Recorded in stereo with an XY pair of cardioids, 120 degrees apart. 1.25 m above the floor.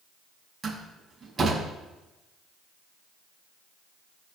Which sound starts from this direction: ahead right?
A door slam, at 0.6 s.